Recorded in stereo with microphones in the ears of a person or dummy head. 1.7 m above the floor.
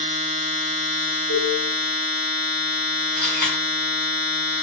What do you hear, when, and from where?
0.0 s a machine running: 40° right (ahead or behind), 0.9 m
1.3 s a cowbell: 55° right (ahead or behind), 1.4 m
3.2 s a camera shutter: 45° right (ahead or behind), 1.8 m